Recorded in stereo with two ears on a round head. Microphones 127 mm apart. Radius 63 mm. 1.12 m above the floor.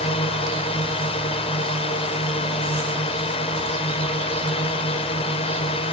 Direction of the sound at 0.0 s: 40° left (ahead or behind).